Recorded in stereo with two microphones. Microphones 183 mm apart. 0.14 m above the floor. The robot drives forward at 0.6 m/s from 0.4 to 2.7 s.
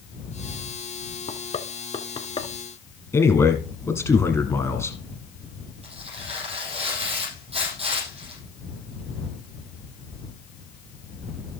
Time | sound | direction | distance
1.3 | knocking | 40° left (ahead or behind) | 0.9 m
3.1 | a man speaking | 15° left (ahead or behind) | 1.3 m
5.8 | tearing paper | 30° right (ahead or behind) | 6.5 m